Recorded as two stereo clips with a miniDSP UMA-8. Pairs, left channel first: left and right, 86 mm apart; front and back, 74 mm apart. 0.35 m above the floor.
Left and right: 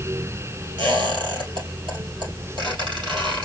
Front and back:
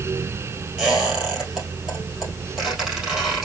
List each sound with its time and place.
0.8 s a squeak: 95° right, 3.5 m